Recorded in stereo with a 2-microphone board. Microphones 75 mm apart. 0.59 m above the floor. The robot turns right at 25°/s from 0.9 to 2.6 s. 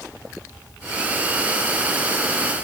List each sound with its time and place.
Only background noise.